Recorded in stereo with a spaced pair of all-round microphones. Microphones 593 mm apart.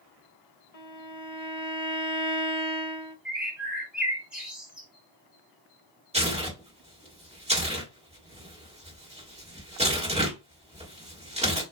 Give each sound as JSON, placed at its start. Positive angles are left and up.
{"t": 0.7, "sound": "a violin", "side_deg": 70, "distance_m": 0.7}
{"t": 3.2, "sound": "a bird", "side_deg": 0, "distance_m": 1.2}
{"t": 6.1, "sound": "tearing paper", "side_deg": -10, "distance_m": 1.3}